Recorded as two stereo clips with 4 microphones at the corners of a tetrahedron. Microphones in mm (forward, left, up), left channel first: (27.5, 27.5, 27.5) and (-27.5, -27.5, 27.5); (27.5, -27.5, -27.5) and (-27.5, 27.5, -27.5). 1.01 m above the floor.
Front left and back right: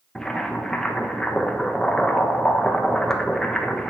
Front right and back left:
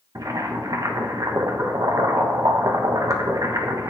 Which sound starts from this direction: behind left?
Boiling, at 0.1 s.